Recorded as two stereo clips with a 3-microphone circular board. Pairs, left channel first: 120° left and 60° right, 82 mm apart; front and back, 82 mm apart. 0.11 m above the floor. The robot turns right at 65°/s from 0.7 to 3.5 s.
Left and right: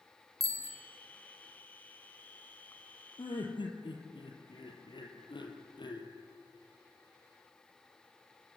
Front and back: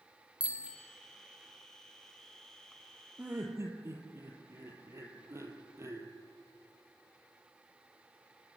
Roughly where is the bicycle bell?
Right.